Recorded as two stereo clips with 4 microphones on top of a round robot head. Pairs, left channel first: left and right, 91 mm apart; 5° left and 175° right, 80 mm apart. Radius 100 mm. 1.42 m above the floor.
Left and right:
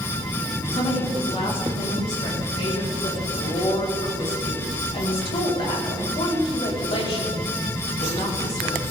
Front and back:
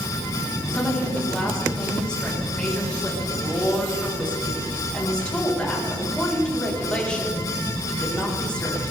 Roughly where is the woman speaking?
Left.